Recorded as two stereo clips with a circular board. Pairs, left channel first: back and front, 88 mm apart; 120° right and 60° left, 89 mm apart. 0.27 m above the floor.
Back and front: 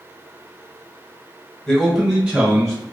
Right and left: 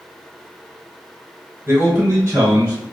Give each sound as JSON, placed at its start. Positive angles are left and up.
{"t": 1.7, "sound": "a man speaking", "azimuth_deg": 90, "distance_m": 0.9}